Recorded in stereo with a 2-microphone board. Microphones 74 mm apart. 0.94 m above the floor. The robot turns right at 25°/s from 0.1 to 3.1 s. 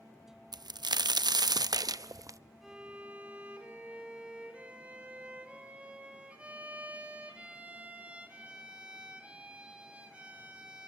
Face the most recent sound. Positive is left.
turn(degrees=-15)  # may be behind; listen again after turning